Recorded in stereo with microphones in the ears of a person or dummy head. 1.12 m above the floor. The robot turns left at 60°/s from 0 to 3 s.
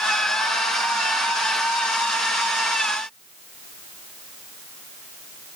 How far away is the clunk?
I don't hear a clunk.